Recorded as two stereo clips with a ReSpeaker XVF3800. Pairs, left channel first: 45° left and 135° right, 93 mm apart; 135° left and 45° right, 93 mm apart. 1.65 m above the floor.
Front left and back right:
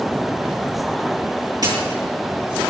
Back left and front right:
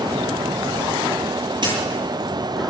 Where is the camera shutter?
90° right, 9.5 m.